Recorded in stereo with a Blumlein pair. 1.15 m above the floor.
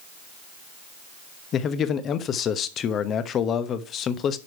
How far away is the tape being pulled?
No tape being pulled in this recording.